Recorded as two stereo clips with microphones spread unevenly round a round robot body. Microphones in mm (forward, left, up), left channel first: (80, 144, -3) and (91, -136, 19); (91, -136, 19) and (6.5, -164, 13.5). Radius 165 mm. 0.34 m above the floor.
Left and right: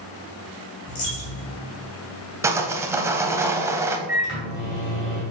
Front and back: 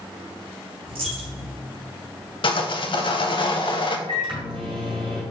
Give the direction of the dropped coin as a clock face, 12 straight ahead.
7 o'clock.